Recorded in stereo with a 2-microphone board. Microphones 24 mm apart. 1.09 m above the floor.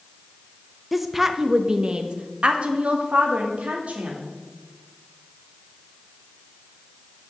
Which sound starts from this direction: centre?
A woman speaking, at 0.9 s.